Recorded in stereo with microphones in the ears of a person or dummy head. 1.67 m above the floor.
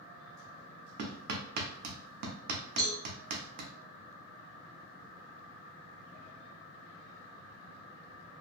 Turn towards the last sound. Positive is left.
turn(degrees=5)  # may be behind; listen again after turning